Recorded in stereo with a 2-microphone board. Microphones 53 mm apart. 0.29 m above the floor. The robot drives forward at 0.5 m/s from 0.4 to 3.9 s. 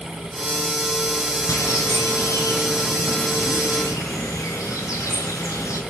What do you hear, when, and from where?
1.5 s a bird: 70° left (ahead or behind), 4 m; by 5.8 s 75° left (ahead or behind), 3.5 m